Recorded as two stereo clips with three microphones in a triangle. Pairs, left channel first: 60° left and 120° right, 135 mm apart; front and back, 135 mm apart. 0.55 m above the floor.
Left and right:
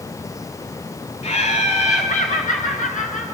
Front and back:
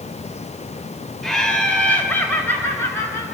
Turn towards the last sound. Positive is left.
turn(degrees=70)